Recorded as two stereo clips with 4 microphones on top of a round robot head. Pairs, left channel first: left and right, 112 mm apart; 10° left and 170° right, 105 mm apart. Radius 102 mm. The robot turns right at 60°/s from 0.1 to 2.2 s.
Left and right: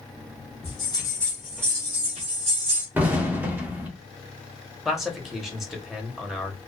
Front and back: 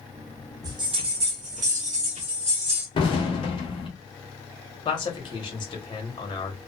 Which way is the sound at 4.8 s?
5° right.